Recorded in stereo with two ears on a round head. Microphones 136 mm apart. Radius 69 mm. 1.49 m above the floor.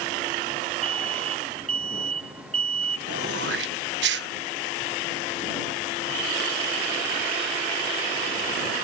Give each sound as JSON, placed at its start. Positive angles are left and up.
{"t": 0.8, "sound": "an alarm", "side_deg": -40}
{"t": 3.1, "sound": "throat clearing", "side_deg": -80}